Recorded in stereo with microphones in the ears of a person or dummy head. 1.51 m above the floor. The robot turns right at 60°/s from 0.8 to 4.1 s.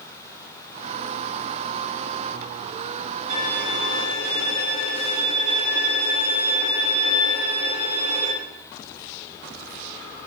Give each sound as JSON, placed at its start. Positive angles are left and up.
{"t": 3.3, "sound": "a violin", "azimuth_deg": -135, "distance_m": 7.5}